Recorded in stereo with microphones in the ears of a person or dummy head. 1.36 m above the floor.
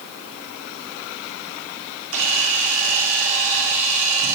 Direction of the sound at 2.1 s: 80° right.